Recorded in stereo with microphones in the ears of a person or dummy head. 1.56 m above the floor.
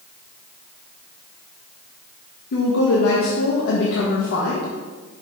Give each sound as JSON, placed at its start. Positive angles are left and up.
{"t": 2.5, "sound": "a woman speaking", "side_deg": 60, "distance_m": 1.1}